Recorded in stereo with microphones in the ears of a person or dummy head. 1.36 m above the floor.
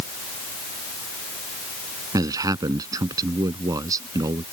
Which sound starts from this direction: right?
A man speaking, at 2.1 s.